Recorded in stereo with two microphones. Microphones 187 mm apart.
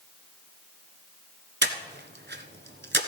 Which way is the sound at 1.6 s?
70° right (ahead or behind).